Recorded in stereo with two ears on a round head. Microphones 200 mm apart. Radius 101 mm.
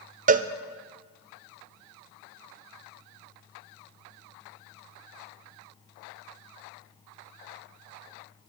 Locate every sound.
0.3 s a cowbell: 35° right (ahead or behind), 0.6 m